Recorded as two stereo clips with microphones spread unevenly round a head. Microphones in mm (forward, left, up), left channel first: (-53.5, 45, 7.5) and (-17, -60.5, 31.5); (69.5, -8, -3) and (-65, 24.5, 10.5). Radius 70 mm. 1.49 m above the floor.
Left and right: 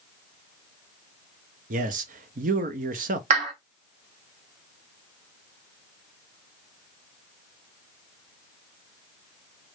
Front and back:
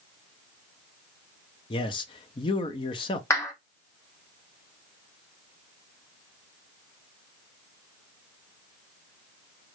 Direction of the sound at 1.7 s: 65° right.